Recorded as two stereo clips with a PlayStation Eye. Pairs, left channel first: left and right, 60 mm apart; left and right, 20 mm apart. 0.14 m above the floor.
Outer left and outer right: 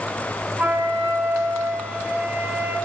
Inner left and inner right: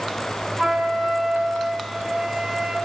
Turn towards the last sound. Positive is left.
turn(degrees=-25)  # may be behind; listen again after turning